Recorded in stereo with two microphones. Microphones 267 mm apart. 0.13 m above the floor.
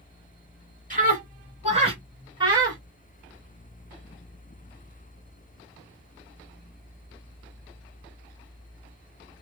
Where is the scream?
30° right (ahead or behind), 1.4 m; by 2.8 s 15° right (ahead or behind), 1.6 m.